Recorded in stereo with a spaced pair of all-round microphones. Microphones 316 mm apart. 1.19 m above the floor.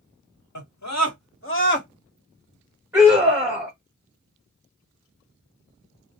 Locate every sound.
0.6 s a scream: 65° left (ahead or behind), 1.2 m; by 1.9 s 30° left (ahead or behind), 1.2 m
2.9 s a scream: 5° right (ahead or behind), 1.3 m